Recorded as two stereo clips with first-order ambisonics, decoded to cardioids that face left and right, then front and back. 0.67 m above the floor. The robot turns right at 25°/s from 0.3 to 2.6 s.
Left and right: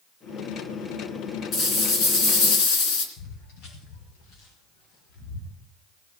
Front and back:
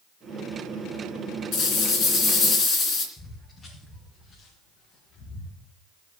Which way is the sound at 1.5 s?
40° left.